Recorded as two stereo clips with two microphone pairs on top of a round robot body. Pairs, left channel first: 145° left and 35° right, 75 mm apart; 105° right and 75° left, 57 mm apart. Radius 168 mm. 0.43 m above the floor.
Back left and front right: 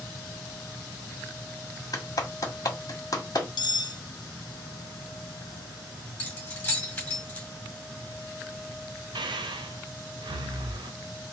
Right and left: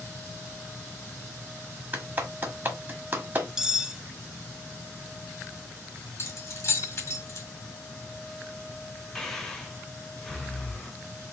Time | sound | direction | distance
1.9 | a clap | 120° left | 1.8 m
3.6 | cutlery clinking | 150° left | 0.7 m
6.2 | keys jangling | 145° right | 2 m
9.2 | breathing | 25° right | 0.6 m